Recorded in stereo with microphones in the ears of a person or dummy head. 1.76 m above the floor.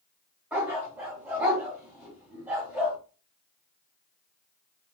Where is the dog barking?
5° right (ahead or behind), 2.5 m.